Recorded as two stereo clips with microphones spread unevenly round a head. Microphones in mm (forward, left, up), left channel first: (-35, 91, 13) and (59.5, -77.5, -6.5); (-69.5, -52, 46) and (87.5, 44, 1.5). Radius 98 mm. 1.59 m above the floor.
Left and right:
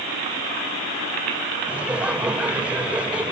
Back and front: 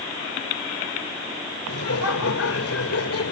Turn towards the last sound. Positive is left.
turn(degrees=-145)